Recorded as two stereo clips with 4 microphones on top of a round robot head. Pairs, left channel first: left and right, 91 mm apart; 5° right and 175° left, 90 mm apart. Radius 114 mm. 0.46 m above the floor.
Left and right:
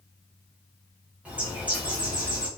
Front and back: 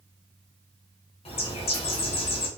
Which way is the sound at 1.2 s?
10° right.